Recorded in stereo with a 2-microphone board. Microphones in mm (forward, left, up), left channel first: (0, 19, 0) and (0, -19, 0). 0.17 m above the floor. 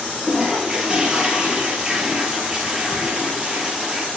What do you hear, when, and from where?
0.2 s a toilet flushing: 20° right (ahead or behind), 3.5 m